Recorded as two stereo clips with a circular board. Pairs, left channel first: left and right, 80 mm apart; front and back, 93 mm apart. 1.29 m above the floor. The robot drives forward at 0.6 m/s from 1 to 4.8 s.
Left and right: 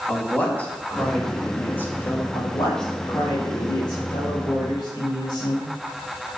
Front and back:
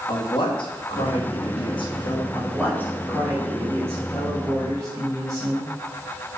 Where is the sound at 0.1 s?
20° left, 2.0 m; by 2.2 s 30° left, 1.3 m.